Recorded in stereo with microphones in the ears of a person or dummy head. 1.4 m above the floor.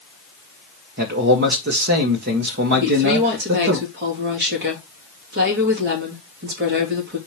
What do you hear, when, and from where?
1.0 s a man speaking: 55° right (ahead or behind), 1.6 m
2.8 s a woman speaking: 50° right (ahead or behind), 2.5 m